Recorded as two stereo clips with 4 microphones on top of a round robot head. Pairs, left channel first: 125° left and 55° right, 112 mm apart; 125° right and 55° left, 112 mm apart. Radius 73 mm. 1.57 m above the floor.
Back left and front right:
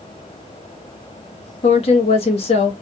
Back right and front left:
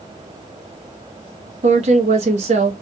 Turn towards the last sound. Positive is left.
turn(degrees=85)